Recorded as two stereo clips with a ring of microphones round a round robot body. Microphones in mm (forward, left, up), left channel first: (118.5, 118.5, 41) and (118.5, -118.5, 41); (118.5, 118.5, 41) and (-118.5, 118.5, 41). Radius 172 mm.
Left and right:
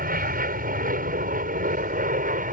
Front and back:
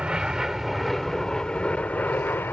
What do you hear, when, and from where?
0.0 s an aircraft: 95° right; by 2.5 s 75° right